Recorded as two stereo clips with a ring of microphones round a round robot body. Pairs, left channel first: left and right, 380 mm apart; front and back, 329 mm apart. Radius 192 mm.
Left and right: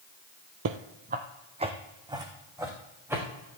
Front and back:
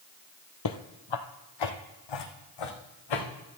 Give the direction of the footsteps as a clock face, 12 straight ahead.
1 o'clock.